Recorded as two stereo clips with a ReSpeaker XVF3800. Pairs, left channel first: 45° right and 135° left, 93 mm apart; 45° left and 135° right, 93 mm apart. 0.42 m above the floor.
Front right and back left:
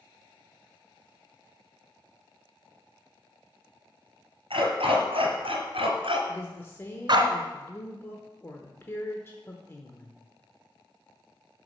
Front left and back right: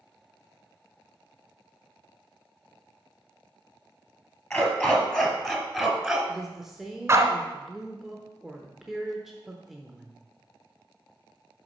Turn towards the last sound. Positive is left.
turn(degrees=-55)